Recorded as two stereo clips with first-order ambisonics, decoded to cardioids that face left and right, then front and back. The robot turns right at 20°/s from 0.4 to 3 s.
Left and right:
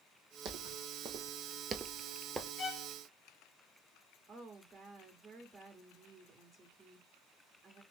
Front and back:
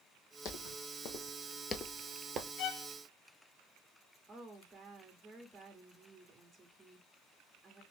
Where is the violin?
25° left, 1.0 m; by 2.9 s 35° left, 1.0 m.